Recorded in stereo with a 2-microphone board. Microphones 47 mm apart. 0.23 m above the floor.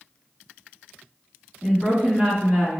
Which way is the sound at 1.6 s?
20° right (ahead or behind).